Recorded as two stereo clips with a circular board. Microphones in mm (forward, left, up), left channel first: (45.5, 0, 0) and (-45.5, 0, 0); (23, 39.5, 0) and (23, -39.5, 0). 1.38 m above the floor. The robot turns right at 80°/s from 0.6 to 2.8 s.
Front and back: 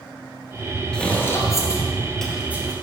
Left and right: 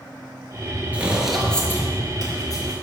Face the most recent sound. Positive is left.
turn(degrees=135)